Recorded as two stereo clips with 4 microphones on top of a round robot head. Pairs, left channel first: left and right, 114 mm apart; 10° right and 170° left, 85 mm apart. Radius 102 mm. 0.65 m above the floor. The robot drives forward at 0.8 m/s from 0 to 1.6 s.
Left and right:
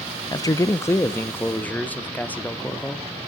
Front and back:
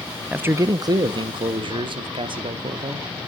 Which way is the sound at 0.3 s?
105° left.